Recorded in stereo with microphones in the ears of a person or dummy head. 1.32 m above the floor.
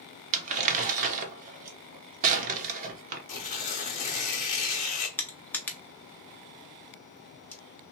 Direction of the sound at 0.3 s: 50° right (ahead or behind).